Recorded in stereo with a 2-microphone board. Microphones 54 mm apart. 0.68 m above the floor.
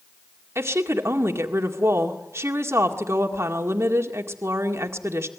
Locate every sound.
0.6 s a woman speaking: 60° right (ahead or behind), 1.9 m